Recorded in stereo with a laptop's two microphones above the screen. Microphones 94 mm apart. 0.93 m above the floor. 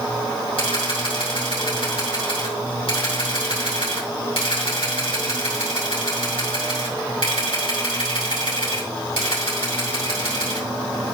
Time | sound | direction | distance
0.6 | a camera shutter | 70° left (ahead or behind) | 5.5 m